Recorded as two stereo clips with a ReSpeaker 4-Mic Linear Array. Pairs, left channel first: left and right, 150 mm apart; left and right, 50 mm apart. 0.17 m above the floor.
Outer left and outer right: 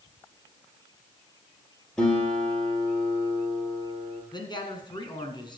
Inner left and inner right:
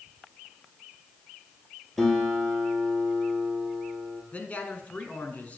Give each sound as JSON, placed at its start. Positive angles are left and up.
{"t": 2.0, "sound": "a guitar", "side_deg": 5, "distance_m": 3.0}
{"t": 4.3, "sound": "a man speaking", "side_deg": 30, "distance_m": 1.7}